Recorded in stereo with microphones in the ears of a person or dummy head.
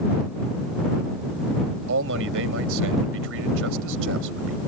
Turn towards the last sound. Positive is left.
turn(degrees=-80)